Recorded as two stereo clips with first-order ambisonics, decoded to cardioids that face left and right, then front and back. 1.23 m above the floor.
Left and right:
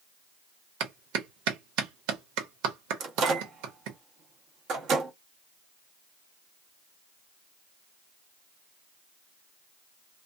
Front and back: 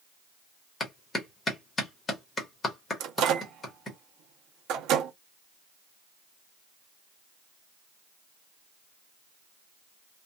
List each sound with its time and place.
0.8 s a clap: 70° right, 1.1 m
3.0 s a microwave: 140° right, 0.8 m